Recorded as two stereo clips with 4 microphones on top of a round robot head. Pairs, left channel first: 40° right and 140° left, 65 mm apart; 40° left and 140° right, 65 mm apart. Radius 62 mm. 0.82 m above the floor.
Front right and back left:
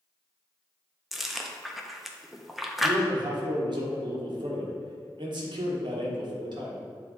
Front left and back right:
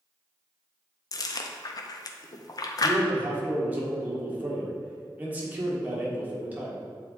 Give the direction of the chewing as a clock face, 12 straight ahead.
10 o'clock.